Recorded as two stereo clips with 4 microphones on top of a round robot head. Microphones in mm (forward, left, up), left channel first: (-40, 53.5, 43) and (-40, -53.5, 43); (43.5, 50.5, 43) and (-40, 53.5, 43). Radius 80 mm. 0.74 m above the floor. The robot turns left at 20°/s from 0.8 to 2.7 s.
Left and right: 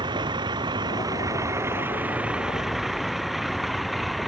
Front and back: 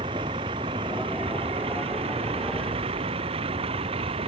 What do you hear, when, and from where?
0.0 s a vehicle: 140° right; by 4.3 s straight behind